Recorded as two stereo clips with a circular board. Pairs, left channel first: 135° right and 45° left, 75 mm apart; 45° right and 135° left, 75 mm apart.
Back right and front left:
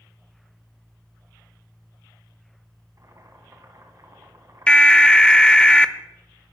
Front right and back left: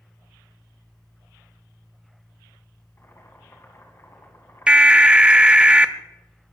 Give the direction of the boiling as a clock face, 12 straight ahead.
12 o'clock.